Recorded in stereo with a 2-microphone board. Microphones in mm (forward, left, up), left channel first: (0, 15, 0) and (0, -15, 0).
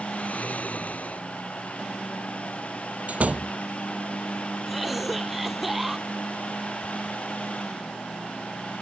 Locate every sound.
0.1 s snoring: 55° left (ahead or behind)
3.1 s a door slam: 55° right (ahead or behind)
4.7 s a cough: 5° right (ahead or behind)